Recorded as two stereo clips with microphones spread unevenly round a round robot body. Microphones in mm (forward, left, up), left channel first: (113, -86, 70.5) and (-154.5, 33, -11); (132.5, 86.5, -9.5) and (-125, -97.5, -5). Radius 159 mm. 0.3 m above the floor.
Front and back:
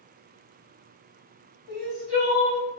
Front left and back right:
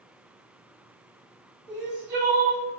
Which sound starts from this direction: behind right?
Crying, at 1.7 s.